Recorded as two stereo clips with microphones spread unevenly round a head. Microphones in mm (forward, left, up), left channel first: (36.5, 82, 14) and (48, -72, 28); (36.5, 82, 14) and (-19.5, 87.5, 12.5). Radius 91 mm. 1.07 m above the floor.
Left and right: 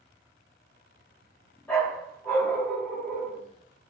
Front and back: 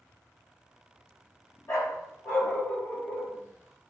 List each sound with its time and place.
1.7 s a dog barking: 15° left, 1.5 m